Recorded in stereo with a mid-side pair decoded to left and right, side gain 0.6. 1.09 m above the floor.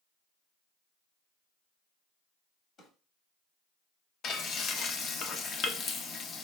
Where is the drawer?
50° left, 1.3 m.